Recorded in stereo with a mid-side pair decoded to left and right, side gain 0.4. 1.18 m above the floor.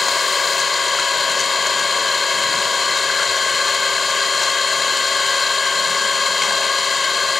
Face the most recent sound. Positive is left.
turn(degrees=30)